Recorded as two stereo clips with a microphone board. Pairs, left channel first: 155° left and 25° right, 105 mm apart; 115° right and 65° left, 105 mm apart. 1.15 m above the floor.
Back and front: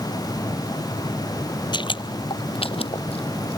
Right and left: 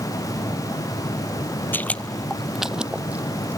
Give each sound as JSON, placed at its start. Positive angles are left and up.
{"t": 1.7, "sound": "footsteps", "azimuth_deg": 180}